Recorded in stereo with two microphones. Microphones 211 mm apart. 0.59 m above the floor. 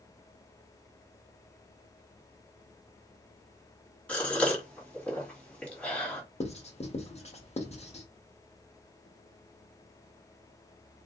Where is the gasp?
5° left (ahead or behind), 1.9 m.